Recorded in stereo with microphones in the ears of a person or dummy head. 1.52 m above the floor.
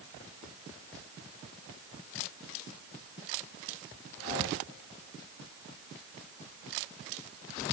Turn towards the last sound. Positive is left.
No sound to turn to.